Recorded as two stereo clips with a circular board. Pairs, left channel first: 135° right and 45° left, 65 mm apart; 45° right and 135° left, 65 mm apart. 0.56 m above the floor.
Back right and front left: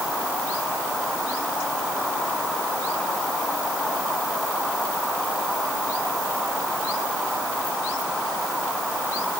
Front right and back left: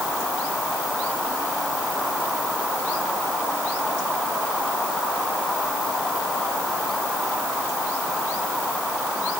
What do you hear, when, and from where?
Only background noise.